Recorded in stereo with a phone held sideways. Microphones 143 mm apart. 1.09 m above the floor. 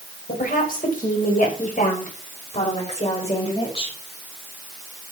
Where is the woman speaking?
80° left, 5 m; by 4.0 s 40° left (ahead or behind), 5 m.